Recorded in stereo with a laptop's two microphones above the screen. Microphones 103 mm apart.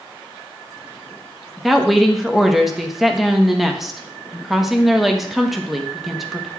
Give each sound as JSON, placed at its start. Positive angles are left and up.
{"t": 1.6, "sound": "a woman speaking", "side_deg": -5, "distance_m": 1.1}